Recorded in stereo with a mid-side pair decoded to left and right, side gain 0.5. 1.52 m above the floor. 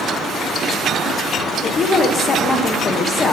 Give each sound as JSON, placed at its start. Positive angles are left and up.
{"t": 1.6, "sound": "a woman speaking", "azimuth_deg": 40, "distance_m": 0.9}